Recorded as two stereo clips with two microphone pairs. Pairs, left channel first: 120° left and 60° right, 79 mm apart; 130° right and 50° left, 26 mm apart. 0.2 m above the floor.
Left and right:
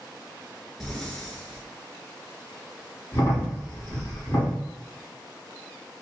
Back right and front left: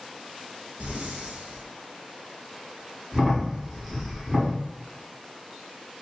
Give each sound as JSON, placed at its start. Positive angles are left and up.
{"t": 0.8, "sound": "breathing", "azimuth_deg": 35, "distance_m": 1.0}
{"t": 3.1, "sound": "a crack", "azimuth_deg": 115, "distance_m": 2.0}